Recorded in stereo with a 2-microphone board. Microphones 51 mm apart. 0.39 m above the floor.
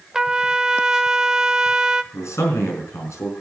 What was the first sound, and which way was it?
A trumpet, 15° right (ahead or behind).